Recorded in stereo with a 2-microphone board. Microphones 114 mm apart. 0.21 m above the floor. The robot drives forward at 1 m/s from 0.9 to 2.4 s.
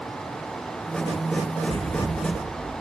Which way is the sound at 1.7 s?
60° right (ahead or behind).